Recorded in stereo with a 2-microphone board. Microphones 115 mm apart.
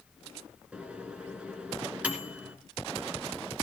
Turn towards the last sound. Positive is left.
turn(degrees=-10)  # may be behind; listen again after turning